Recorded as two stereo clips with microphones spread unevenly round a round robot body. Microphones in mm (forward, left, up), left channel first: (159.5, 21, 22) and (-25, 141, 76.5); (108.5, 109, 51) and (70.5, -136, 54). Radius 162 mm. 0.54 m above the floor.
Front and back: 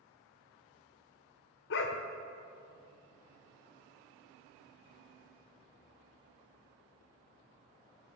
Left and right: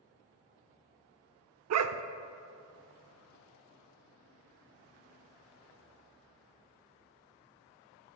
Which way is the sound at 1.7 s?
75° right.